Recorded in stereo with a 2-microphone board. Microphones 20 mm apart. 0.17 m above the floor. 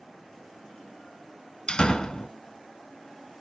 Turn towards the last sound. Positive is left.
turn(degrees=35)  # may be behind; listen again after turning